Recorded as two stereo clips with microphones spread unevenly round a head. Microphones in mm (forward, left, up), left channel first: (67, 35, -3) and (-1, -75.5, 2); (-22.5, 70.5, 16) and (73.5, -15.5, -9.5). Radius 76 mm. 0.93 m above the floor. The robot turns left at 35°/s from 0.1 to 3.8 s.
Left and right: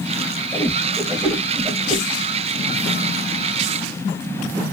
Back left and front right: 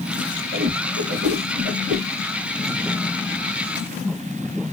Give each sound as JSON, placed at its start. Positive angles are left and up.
{"t": 0.5, "sound": "a whoosh", "azimuth_deg": -15, "distance_m": 1.4}